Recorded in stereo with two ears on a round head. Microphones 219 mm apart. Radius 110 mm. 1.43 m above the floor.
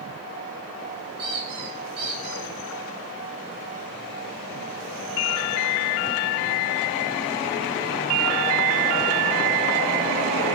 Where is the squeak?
20° right (ahead or behind), 5.5 m.